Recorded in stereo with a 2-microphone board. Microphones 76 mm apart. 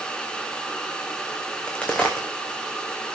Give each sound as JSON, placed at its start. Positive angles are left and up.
{"t": 1.5, "sound": "a crack", "side_deg": 15, "distance_m": 2.5}